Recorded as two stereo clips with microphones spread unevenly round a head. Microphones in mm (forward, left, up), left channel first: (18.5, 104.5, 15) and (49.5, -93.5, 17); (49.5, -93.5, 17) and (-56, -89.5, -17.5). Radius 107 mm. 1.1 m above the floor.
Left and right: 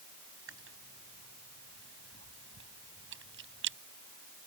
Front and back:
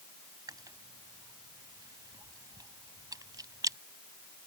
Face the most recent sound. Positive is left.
turn(degrees=-125)